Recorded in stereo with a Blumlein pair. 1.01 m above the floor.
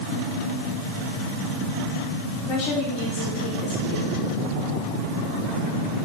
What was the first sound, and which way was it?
A woman speaking, 40° left.